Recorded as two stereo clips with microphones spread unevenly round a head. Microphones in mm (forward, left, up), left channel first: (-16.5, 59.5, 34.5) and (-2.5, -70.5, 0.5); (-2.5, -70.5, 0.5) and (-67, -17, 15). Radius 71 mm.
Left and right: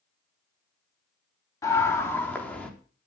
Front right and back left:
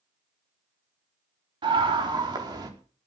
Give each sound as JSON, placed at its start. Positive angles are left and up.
{"t": 1.6, "sound": "a scream", "azimuth_deg": 165, "distance_m": 4.0}